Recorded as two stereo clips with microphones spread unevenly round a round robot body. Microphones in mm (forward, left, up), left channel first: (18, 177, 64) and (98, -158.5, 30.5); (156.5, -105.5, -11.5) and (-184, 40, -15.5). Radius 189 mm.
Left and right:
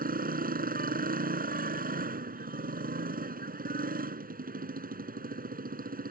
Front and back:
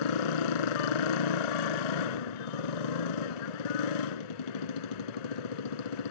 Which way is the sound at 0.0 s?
10° right.